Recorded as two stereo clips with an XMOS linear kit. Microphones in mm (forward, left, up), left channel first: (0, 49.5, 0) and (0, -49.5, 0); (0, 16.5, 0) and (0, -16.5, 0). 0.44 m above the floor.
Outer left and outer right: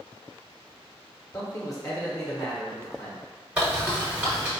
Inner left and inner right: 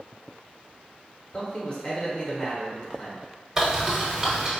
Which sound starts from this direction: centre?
A bird, at 3.6 s.